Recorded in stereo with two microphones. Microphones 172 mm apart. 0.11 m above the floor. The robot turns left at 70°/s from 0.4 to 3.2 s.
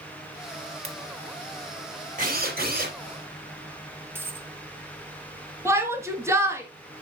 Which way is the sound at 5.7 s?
15° right (ahead or behind).